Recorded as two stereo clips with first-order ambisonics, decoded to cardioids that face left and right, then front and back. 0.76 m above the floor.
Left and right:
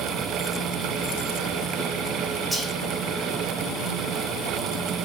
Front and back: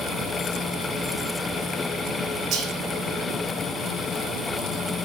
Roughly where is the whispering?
Behind.